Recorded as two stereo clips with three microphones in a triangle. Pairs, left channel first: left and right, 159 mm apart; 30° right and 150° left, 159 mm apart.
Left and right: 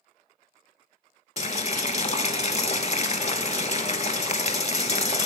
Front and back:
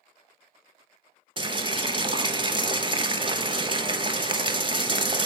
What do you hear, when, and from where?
1.4 s boiling: 110° left, 0.5 m